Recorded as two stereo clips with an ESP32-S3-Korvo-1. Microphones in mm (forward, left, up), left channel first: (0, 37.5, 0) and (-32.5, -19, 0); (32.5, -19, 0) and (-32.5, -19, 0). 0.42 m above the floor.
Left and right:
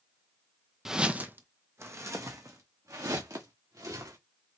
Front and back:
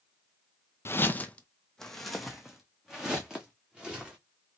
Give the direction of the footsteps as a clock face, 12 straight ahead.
1 o'clock.